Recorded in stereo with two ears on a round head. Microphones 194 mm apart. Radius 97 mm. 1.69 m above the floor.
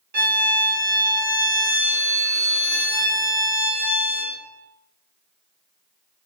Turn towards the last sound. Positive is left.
turn(degrees=-45)  # may be behind; listen again after turning